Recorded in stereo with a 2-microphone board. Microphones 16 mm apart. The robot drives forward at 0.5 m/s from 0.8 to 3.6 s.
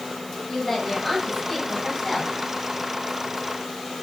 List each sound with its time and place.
0.5 s a woman speaking: 5° left (ahead or behind), 3.5 m